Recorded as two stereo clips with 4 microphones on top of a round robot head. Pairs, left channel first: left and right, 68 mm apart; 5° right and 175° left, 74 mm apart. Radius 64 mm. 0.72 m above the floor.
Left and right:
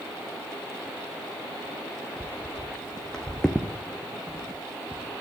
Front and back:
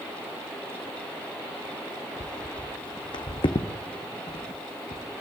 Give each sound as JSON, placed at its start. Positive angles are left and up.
{"t": 2.2, "sound": "footsteps", "azimuth_deg": 20, "distance_m": 1.5}